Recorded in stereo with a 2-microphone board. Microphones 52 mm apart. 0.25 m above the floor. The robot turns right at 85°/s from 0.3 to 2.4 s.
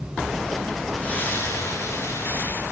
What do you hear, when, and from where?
1.0 s a splash: 20° left, 4 m; by 2.6 s 140° left, 4 m